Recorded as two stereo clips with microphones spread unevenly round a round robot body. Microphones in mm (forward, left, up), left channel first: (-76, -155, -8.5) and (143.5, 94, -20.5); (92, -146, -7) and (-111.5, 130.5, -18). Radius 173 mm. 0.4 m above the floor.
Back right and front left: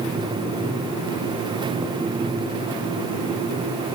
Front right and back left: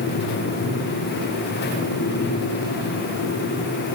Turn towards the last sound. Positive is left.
No sound to turn to.